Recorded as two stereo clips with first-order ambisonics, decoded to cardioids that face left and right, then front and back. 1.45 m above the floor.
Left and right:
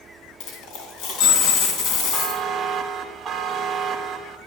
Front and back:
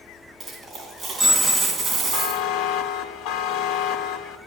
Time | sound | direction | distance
0.4 | a dropped coin | 100° left | 3 m
2.1 | a buzzer | 20° right | 1.3 m